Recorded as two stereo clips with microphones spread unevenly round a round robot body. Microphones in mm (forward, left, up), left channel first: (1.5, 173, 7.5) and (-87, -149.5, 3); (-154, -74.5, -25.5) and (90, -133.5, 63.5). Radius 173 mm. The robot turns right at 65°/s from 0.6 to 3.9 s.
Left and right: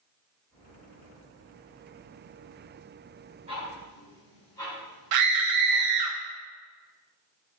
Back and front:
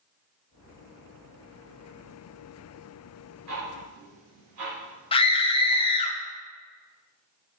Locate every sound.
3.5 s ticking: 35° right, 2.0 m; by 5.9 s 5° right, 2.0 m
5.1 s a scream: 135° right, 0.6 m